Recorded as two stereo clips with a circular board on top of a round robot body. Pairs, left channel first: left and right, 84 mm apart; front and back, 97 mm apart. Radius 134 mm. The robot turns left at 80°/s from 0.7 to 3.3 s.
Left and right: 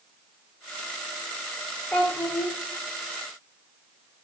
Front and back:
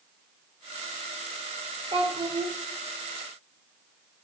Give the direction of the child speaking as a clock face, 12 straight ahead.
6 o'clock.